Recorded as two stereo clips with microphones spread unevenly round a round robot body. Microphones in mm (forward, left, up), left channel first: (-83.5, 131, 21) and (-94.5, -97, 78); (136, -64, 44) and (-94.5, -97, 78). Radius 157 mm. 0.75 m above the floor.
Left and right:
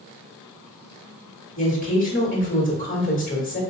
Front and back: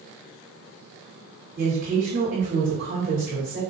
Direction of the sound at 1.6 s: 125° left.